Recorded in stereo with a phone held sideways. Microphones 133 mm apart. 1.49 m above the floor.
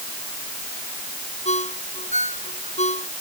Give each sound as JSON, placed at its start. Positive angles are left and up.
{"t": 1.4, "sound": "a ringtone", "side_deg": 65}